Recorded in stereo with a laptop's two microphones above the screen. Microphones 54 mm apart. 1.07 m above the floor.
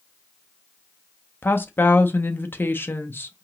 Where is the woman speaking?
40° left (ahead or behind), 0.5 m.